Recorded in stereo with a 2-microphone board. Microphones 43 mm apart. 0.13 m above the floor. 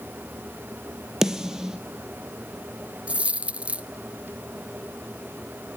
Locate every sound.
1.2 s a snare drum: 15° right (ahead or behind), 1.5 m
3.1 s a dropped coin: 30° right (ahead or behind), 0.6 m